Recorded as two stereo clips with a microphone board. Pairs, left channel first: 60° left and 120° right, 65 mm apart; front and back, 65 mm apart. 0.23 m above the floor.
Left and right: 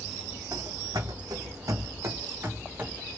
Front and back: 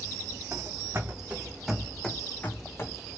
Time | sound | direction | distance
0.5 | running footsteps | 135° right | 0.9 m